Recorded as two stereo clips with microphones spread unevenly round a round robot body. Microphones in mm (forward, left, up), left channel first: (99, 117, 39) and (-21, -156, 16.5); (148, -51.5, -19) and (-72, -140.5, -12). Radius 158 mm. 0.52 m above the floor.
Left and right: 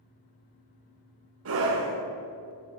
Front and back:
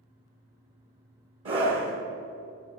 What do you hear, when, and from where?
1.4 s a scream: 140° right, 1.8 m